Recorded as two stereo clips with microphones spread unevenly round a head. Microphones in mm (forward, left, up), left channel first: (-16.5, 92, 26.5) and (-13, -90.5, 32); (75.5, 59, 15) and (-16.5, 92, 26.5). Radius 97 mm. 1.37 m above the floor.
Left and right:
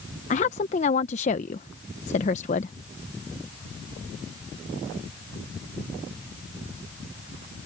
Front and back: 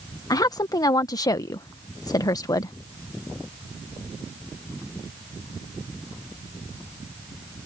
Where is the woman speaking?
35° left.